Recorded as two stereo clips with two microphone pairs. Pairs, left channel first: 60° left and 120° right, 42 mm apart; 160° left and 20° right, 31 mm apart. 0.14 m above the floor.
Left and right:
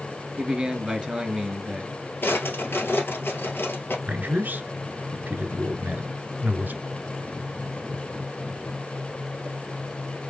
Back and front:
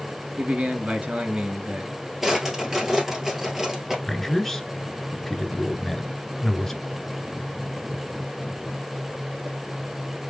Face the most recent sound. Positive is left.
turn(degrees=-125)